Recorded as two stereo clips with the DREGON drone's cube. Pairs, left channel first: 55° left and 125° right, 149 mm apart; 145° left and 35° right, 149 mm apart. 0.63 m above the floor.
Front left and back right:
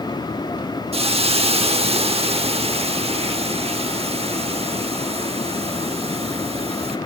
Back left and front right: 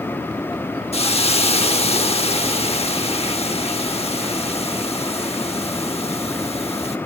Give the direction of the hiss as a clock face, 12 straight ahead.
6 o'clock.